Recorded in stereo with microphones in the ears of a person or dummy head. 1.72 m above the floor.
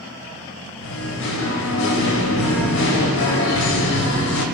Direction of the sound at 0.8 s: 70° left (ahead or behind).